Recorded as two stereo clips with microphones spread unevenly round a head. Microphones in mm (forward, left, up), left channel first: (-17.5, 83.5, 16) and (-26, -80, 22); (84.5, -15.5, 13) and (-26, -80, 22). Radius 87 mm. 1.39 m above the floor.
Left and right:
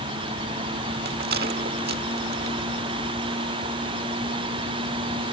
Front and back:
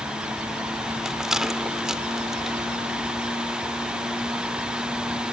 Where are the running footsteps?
No running footsteps in this recording.